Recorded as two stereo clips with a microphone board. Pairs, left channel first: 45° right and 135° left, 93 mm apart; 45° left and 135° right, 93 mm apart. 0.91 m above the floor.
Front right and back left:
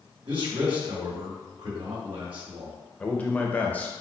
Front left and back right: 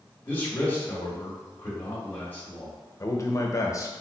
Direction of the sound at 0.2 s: 110° left.